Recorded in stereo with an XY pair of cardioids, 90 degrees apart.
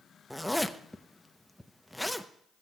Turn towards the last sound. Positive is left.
turn(degrees=0)